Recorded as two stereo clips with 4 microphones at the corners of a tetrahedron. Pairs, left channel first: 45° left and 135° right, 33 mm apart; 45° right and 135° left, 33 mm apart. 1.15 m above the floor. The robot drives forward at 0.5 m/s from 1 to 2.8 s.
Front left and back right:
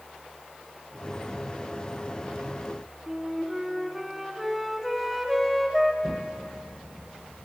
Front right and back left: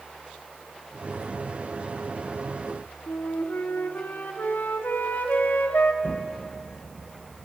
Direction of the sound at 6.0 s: 30° right.